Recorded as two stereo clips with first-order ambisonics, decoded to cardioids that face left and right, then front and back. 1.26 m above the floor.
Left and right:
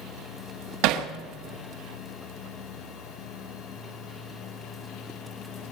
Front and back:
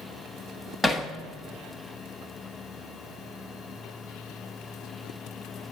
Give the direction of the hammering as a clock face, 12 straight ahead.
3 o'clock.